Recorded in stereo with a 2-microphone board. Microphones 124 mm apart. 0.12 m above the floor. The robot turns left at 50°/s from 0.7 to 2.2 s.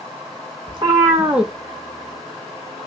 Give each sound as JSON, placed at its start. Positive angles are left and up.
{"t": 0.7, "sound": "a cat meowing", "azimuth_deg": -140, "distance_m": 0.7}